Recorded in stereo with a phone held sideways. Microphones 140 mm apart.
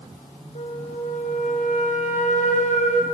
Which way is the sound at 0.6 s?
60° left (ahead or behind).